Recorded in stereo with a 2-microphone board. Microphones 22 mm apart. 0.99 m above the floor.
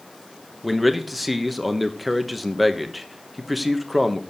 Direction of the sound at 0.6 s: 5° right (ahead or behind).